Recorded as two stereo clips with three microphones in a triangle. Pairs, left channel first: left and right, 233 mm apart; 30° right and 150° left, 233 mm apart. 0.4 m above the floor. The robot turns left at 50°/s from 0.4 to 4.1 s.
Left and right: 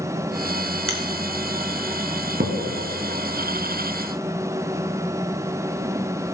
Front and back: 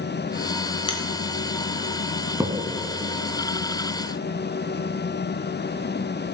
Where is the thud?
130° right, 1.7 m; by 2.5 s 140° right, 1.7 m.